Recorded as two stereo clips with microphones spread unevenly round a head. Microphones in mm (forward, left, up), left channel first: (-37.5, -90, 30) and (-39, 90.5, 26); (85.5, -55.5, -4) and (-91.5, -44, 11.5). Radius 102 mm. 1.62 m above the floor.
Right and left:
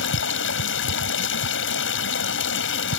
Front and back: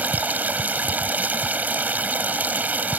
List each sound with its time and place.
0.0 s running water: 105° right